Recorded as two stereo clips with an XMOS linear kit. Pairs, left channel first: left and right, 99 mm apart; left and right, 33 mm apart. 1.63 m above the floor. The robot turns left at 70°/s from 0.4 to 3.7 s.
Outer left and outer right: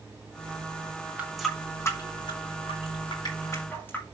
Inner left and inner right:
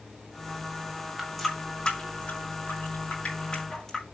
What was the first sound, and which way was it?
A running tap, 15° right (ahead or behind).